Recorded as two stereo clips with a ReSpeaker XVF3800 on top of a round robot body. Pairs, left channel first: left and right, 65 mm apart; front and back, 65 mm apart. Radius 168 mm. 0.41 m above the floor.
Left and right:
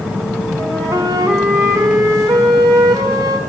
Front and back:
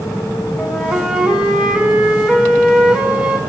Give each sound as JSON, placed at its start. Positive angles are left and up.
{"t": 0.6, "sound": "a flute", "azimuth_deg": -110, "distance_m": 2.5}